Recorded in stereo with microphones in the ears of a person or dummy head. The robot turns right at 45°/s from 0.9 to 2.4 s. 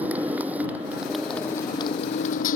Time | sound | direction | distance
0.0 | a motorcycle | 10° right | ?